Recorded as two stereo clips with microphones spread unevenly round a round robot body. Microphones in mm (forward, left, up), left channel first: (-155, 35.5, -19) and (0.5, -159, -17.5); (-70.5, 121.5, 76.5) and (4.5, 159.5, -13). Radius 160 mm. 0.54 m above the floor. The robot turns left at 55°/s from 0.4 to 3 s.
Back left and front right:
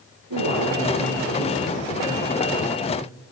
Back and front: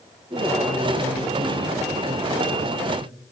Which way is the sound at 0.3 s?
30° right.